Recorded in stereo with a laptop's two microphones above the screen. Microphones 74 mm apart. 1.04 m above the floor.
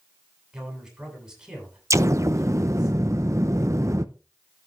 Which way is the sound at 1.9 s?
45° right (ahead or behind).